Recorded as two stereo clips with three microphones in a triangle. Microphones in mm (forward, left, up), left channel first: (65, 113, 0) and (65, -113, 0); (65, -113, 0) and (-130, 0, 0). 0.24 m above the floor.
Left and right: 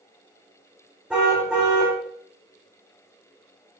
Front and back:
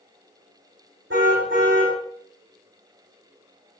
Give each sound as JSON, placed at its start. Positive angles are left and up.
{"t": 1.1, "sound": "a car horn", "azimuth_deg": -175, "distance_m": 8.5}